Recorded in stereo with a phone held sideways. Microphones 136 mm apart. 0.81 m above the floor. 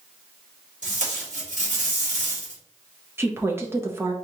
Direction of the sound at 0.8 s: 65° right (ahead or behind).